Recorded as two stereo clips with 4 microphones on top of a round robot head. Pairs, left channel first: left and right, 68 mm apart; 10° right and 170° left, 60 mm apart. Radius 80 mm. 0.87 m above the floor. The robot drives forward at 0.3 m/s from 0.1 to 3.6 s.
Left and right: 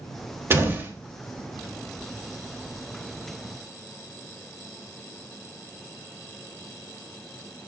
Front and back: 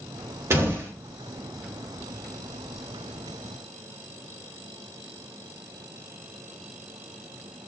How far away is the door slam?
About 3 m.